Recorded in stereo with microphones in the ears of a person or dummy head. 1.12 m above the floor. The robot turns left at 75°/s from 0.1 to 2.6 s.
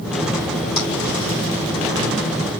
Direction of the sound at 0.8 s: 50° left (ahead or behind).